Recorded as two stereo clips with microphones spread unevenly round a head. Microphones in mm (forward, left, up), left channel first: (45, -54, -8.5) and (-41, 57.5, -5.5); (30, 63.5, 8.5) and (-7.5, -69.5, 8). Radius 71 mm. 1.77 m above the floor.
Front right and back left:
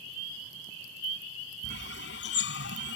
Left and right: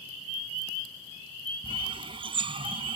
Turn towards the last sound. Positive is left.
turn(degrees=-50)